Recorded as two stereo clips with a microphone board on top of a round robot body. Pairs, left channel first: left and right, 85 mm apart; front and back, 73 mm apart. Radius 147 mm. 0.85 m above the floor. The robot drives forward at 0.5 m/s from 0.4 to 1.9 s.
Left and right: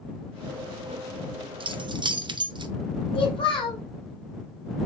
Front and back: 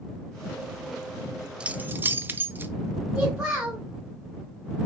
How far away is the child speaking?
About 2.5 m.